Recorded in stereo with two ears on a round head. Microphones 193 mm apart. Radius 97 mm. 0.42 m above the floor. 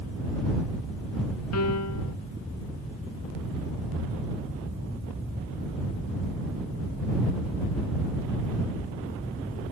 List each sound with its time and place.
1.5 s a piano: 80° left